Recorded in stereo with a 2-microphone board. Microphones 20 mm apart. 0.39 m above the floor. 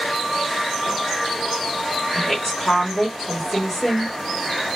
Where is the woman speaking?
15° left (ahead or behind), 1.2 m.